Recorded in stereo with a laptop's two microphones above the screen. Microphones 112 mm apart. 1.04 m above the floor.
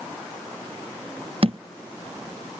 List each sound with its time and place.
1.4 s a thud: 55° right (ahead or behind)